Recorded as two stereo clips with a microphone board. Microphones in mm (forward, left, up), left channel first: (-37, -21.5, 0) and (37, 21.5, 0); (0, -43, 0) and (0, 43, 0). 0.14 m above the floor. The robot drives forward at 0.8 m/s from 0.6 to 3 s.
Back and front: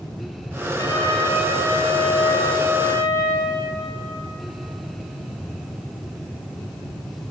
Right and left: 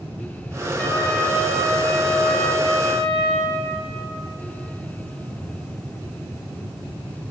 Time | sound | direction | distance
0.8 | a trumpet | 160° right | 1.8 m